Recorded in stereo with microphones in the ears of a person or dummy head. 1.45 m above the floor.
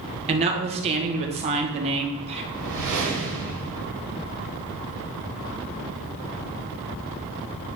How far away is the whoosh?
About 2 m.